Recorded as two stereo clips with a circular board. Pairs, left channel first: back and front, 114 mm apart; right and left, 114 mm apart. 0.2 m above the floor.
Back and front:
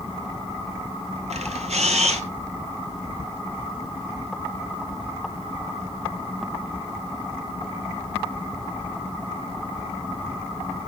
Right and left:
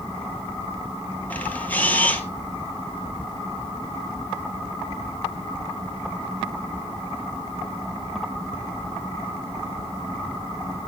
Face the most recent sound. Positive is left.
turn(degrees=-10)